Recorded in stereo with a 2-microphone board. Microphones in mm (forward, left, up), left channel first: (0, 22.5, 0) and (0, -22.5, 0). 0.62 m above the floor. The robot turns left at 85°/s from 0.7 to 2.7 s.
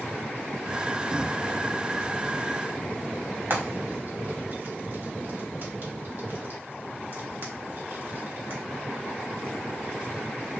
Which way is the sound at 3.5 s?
50° right (ahead or behind).